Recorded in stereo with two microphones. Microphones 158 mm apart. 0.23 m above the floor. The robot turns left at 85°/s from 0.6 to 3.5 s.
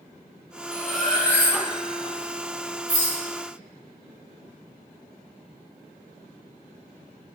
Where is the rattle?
60° left (ahead or behind), 1.3 m; by 3.2 s 35° left (ahead or behind), 1.3 m.